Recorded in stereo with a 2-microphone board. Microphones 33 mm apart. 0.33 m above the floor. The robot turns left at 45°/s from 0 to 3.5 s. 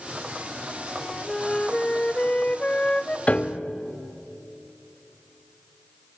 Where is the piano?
40° left (ahead or behind), 0.8 m; by 3.7 s 30° left (ahead or behind), 0.8 m.